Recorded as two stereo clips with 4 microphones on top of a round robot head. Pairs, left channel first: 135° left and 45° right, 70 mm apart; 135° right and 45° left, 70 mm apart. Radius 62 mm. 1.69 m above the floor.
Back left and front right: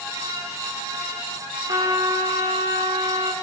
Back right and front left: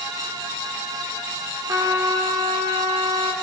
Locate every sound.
1.7 s a trumpet: 5° right, 6.5 m